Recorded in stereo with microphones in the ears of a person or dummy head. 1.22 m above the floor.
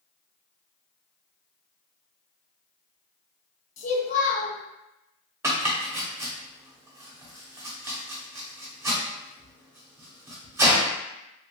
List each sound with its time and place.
3.8 s a child speaking: 45° left (ahead or behind), 0.8 m
5.4 s chopping: 15° right (ahead or behind), 0.6 m